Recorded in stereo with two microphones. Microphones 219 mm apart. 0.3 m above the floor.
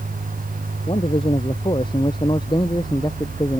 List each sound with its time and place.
0.9 s a man speaking: 25° left (ahead or behind); by 3.6 s 15° left (ahead or behind)